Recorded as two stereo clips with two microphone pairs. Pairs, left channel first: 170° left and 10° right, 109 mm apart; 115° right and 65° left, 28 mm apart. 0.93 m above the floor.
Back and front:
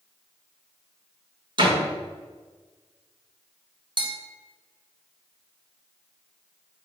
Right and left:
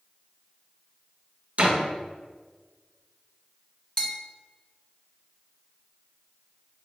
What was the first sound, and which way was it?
A door slam, 30° left.